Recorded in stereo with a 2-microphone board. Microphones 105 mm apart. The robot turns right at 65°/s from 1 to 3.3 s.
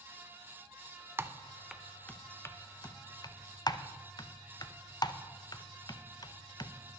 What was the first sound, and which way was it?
Typing on a keyboard, 25° right (ahead or behind).